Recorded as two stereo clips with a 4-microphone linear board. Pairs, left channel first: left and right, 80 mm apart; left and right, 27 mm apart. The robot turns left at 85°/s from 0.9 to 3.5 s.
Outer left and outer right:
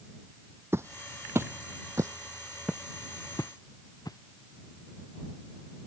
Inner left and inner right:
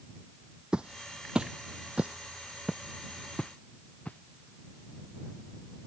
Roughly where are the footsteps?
Right.